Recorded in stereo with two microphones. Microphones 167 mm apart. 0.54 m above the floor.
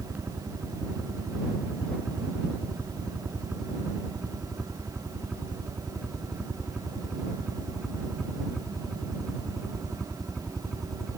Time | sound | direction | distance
0.0 | a helicopter | 10° right (ahead or behind) | ?